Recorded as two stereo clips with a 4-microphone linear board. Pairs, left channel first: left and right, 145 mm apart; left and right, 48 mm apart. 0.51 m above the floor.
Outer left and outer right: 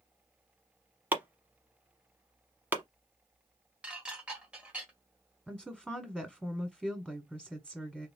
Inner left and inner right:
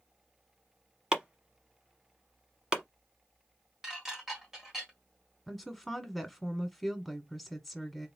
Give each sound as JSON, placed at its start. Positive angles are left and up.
{"t": 1.1, "sound": "chopping", "side_deg": -10, "distance_m": 1.0}
{"t": 3.8, "sound": "dishes clattering", "side_deg": -10, "distance_m": 1.5}
{"t": 5.5, "sound": "a woman speaking", "side_deg": 0, "distance_m": 1.3}